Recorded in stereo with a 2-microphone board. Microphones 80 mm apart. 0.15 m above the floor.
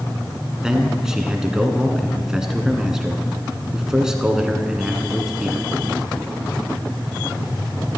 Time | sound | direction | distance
0.6 | a man speaking | 10° right (ahead or behind) | 1.4 m